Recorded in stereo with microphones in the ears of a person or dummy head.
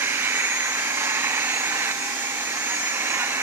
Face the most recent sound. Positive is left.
turn(degrees=-15)  # may be behind; listen again after turning